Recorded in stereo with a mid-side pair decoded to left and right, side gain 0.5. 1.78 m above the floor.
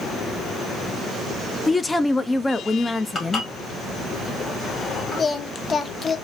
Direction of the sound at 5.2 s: 35° left.